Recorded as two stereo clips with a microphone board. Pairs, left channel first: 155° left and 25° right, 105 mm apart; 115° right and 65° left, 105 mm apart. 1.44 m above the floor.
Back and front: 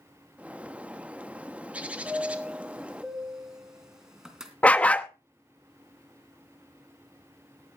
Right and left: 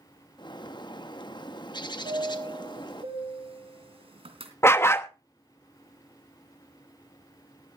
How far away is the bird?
About 1.0 m.